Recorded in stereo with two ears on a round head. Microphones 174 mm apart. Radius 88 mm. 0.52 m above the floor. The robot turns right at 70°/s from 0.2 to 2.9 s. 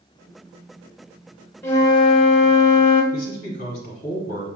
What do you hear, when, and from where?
1.6 s a flute: 20° left, 0.8 m; by 3.0 s 110° left, 0.8 m
3.1 s a man speaking: 40° left (ahead or behind), 1.2 m